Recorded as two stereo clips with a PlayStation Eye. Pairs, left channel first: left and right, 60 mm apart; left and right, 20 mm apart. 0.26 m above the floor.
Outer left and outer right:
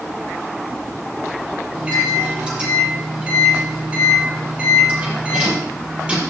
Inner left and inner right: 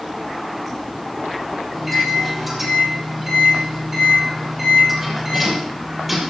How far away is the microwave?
About 6 m.